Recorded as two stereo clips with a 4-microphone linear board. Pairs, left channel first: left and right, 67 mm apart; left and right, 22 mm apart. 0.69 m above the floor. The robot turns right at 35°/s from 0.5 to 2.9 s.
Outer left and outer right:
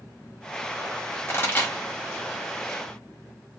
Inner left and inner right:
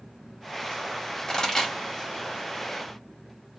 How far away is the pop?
About 1.6 m.